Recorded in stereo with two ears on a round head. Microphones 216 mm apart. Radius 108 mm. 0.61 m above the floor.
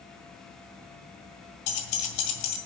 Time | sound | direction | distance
1.7 | keys jangling | 80° left | 1.8 m